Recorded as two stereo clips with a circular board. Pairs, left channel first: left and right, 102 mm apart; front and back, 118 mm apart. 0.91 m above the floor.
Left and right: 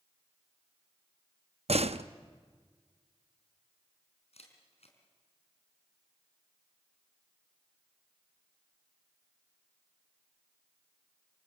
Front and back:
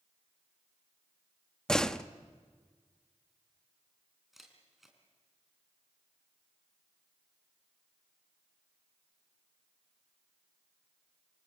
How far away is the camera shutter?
About 4 m.